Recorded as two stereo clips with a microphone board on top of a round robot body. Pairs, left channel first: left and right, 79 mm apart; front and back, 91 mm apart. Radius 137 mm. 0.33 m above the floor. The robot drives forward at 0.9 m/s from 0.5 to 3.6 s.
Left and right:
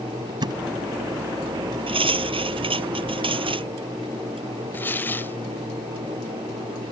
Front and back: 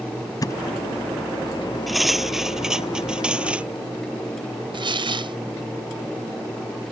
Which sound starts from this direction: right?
Cutlery clinking, at 1.9 s.